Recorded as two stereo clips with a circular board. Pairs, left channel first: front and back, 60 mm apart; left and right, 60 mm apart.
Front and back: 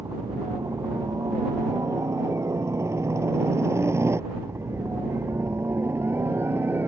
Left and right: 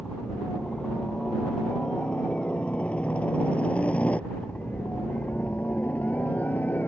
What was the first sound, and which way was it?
A helicopter, 165° left.